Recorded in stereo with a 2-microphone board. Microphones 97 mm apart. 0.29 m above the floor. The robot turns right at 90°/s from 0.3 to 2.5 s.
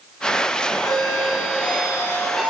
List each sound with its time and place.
0.8 s a doorbell: 45° left, 2.5 m; by 2.5 s 165° right, 2.5 m